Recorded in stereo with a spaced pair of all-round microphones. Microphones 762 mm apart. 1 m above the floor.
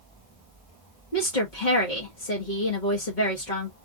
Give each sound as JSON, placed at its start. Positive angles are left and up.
{"t": 1.1, "sound": "a woman speaking", "side_deg": 75, "distance_m": 1.6}